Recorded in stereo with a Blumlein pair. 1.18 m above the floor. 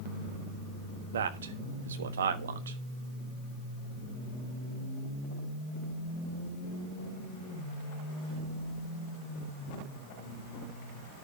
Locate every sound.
1.1 s a man speaking: 65° right, 1.3 m